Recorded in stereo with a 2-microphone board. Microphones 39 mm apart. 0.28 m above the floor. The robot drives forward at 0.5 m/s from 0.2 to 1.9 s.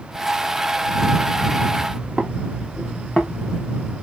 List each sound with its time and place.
1.9 s footsteps: 30° right (ahead or behind), 1.2 m; by 3.9 s 20° left (ahead or behind), 1.2 m